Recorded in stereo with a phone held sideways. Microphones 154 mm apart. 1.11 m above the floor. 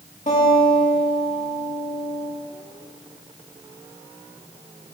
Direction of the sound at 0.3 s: 55° left (ahead or behind).